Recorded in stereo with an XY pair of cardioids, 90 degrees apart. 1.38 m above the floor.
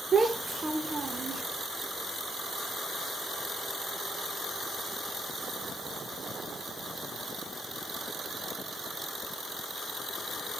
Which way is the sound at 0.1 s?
35° right.